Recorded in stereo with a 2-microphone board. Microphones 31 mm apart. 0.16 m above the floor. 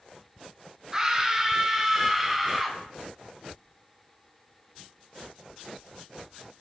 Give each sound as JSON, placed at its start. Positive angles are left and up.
{"t": 0.9, "sound": "a scream", "side_deg": -20, "distance_m": 2.0}